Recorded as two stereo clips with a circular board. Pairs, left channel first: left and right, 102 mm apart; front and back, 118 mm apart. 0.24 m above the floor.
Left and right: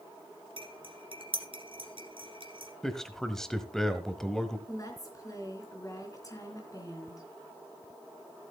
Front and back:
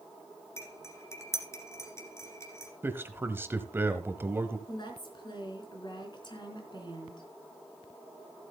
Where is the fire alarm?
I don't hear a fire alarm.